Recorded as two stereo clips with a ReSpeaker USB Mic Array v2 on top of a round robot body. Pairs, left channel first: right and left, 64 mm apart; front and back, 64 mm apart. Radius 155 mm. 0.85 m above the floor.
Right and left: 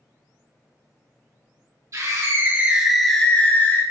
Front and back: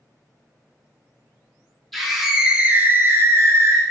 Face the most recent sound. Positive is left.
turn(degrees=-140)